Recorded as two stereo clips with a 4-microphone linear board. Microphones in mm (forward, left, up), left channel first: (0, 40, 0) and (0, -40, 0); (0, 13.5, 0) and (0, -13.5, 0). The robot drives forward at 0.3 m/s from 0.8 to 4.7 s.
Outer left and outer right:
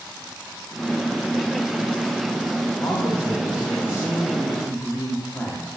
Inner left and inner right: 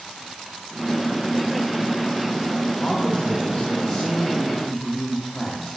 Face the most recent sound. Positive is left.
turn(degrees=30)  # may be behind; listen again after turning